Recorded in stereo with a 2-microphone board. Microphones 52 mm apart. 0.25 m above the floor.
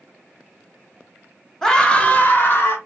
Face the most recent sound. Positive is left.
turn(degrees=50)  # may be behind; listen again after turning